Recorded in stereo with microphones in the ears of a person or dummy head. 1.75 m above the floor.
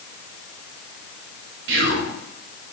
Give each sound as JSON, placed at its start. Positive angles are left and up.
{"t": 1.7, "sound": "whispering", "side_deg": -65, "distance_m": 0.7}